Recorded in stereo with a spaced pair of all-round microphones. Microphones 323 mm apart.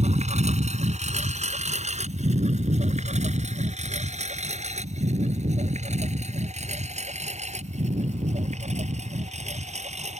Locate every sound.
0.0 s a lawn mower: 20° right (ahead or behind)